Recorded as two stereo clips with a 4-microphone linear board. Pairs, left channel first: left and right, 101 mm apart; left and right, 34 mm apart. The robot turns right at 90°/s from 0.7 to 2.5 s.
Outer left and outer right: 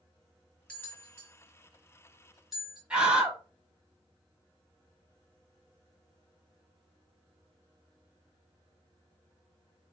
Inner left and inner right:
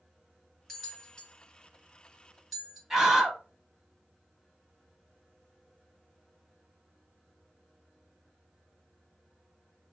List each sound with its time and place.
0.7 s a bell: 10° left (ahead or behind), 1.8 m; by 2.8 s centre (ahead or behind), 1.8 m
2.9 s a scream: 10° right (ahead or behind), 1.0 m